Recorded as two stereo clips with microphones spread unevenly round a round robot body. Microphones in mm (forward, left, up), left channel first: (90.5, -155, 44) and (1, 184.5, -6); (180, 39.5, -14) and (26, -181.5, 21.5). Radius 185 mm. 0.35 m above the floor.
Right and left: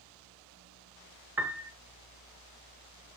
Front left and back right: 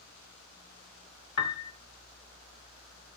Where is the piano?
20° left, 0.7 m.